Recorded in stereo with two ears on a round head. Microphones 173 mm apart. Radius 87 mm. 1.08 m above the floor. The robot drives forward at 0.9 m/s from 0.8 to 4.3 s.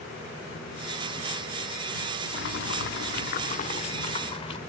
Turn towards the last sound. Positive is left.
turn(degrees=30)  # may be behind; listen again after turning